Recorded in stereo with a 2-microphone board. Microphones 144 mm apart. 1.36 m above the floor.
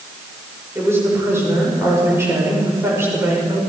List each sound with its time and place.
0.8 s a woman speaking: 20° right (ahead or behind), 6 m